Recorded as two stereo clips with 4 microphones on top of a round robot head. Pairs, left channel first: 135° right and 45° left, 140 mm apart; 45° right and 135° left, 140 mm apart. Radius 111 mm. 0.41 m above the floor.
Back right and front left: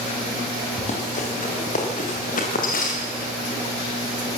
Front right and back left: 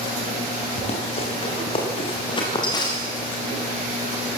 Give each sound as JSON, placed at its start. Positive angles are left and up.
{"t": 0.8, "sound": "running footsteps", "azimuth_deg": -95, "distance_m": 7.5}